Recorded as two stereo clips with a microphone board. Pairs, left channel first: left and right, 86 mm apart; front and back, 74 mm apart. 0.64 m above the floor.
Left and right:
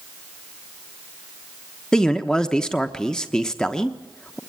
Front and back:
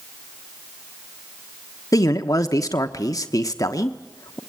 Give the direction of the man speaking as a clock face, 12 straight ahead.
12 o'clock.